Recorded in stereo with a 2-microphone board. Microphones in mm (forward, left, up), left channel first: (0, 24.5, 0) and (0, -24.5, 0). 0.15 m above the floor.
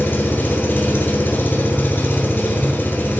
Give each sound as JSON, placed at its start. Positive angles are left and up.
{"t": 0.0, "sound": "an engine running", "side_deg": 50, "distance_m": 0.9}